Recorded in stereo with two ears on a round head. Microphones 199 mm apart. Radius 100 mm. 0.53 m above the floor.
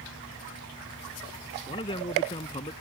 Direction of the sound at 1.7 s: 20° left (ahead or behind).